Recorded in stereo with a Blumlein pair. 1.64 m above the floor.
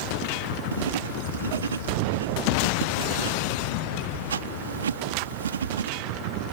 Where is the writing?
65° right.